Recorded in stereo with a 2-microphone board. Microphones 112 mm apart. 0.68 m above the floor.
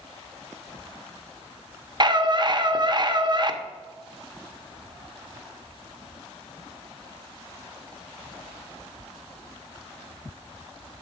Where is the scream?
40° right (ahead or behind), 0.7 m.